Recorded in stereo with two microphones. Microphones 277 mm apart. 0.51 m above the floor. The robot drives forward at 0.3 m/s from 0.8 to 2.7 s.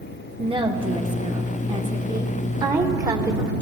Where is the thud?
No thud in this recording.